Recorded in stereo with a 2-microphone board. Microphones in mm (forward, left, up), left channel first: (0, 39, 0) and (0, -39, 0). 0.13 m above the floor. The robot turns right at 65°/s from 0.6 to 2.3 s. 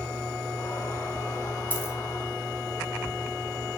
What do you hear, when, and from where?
1.7 s a dropped coin: 25° left (ahead or behind), 2.5 m; by 1.9 s 40° left (ahead or behind), 2.5 m